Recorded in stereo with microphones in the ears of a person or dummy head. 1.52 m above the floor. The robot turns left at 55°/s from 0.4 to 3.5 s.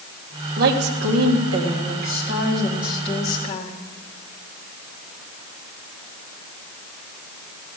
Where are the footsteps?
I don't hear footsteps.